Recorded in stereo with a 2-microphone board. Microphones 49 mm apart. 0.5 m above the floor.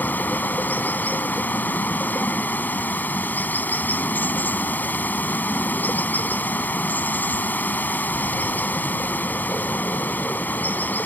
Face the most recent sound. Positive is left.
turn(degrees=35)  # may be behind; listen again after turning